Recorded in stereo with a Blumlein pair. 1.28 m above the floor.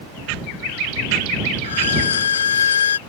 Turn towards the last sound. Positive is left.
turn(degrees=65)